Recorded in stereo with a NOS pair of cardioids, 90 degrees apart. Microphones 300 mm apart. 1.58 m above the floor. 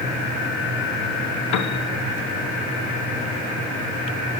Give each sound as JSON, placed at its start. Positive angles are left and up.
{"t": 1.5, "sound": "a piano", "azimuth_deg": 65, "distance_m": 1.0}